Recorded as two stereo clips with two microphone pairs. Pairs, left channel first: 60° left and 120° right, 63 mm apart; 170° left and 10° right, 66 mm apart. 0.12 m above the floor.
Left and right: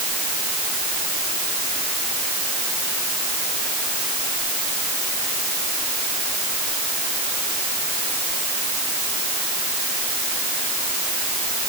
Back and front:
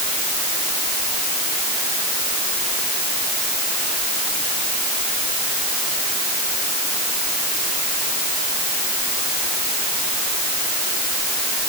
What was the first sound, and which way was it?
Only background noise.